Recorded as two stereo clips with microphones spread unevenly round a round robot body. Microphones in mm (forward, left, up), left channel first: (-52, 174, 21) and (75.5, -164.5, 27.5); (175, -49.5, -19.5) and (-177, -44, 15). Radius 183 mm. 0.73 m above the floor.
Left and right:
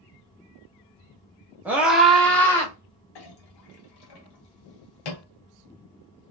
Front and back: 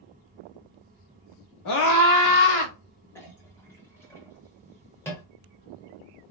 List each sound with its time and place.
1.6 s a scream: 15° left, 1.5 m; by 2.7 s 30° left, 2.0 m
3.1 s a clink: 85° left, 1.2 m